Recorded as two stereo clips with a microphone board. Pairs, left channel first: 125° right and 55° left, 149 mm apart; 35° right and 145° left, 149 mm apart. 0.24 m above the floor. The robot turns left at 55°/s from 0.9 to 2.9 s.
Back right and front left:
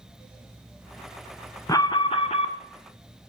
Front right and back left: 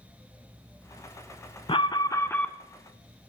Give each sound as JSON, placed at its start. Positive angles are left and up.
{"t": 1.7, "sound": "an alarm", "azimuth_deg": -70, "distance_m": 0.9}